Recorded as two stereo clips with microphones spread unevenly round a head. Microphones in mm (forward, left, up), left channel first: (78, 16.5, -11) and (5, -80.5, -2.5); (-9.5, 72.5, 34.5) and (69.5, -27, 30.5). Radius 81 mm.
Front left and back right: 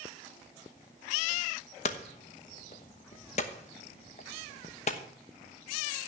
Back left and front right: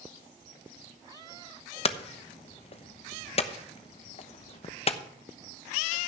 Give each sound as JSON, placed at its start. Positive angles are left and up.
{"t": 1.9, "sound": "hammering", "azimuth_deg": 95, "distance_m": 1.0}